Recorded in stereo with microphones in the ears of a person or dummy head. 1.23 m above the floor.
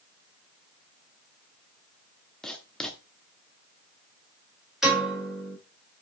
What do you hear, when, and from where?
2.4 s writing: 5° left (ahead or behind), 1.0 m
4.8 s a piano: centre (ahead or behind), 4.5 m